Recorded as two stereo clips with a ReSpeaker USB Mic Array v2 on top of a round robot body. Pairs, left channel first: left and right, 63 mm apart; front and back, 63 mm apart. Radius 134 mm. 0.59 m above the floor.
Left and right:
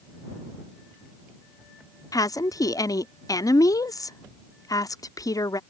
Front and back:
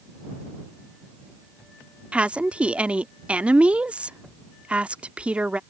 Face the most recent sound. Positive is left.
turn(degrees=110)